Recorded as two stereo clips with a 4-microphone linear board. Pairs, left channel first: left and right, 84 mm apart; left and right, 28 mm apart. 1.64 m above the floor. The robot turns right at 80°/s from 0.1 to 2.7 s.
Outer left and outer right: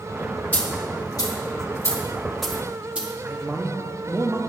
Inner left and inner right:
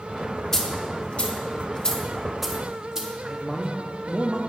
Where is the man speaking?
25° right (ahead or behind), 0.6 m.